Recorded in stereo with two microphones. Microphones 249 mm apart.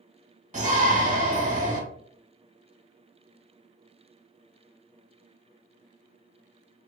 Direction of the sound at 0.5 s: 30° right (ahead or behind).